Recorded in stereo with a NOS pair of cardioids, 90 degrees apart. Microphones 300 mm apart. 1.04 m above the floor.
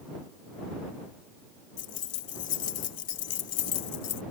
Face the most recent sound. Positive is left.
turn(degrees=55)